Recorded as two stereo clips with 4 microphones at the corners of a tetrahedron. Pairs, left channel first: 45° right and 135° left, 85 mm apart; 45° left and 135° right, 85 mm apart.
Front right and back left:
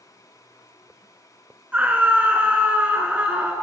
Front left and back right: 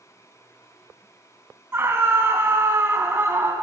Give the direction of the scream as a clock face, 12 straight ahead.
6 o'clock.